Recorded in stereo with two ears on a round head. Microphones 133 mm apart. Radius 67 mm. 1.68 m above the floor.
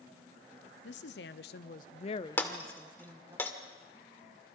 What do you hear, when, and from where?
0.8 s a woman speaking: 85° left, 1.1 m; by 3.4 s 20° right (ahead or behind), 1.0 m
2.4 s breaking glass: 15° left (ahead or behind), 1.8 m